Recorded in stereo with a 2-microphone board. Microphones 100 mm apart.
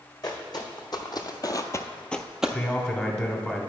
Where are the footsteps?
45° left (ahead or behind), 1.4 m; by 2.6 s 10° right (ahead or behind), 0.7 m.